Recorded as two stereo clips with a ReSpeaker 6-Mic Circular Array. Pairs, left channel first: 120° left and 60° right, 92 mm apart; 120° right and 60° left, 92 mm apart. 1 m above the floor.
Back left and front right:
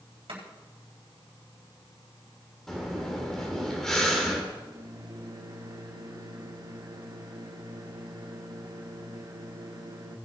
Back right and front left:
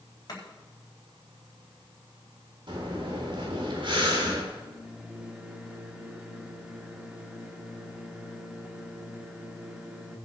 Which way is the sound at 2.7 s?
35° left.